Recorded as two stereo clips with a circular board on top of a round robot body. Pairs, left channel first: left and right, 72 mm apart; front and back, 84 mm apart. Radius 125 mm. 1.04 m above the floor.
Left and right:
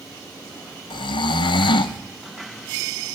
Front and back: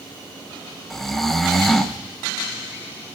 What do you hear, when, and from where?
0.9 s snoring: 85° left, 0.6 m